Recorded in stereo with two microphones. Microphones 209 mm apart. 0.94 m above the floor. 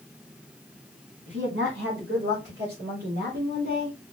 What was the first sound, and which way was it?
A woman speaking, 65° right (ahead or behind).